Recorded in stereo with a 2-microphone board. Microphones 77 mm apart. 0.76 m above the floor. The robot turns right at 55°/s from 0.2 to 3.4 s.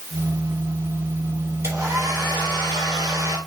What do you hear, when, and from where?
1.6 s a hair dryer: 140° right, 3 m; by 3.4 s 45° right, 3 m